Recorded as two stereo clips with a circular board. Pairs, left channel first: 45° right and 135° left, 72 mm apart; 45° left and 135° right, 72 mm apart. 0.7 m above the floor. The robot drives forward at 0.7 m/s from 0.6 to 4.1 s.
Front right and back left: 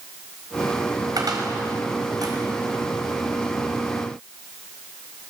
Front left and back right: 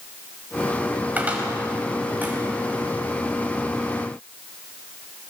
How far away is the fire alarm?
I don't hear a fire alarm.